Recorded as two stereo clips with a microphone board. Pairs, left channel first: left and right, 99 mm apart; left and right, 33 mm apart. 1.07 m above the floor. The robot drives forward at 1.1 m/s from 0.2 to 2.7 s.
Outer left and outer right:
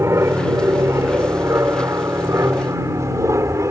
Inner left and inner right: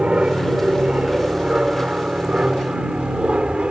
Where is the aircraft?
30° right (ahead or behind).